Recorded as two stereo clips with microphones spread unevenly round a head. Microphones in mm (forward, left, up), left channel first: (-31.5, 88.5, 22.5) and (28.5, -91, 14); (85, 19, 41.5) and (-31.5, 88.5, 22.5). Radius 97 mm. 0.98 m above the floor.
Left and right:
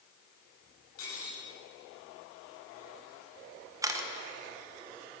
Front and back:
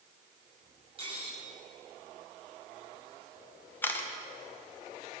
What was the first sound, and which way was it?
Cutlery clinking, 105° left.